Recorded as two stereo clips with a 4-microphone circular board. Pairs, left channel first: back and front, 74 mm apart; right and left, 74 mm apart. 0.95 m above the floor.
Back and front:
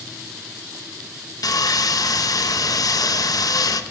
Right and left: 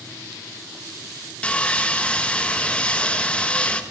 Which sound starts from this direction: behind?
Sawing, at 1.4 s.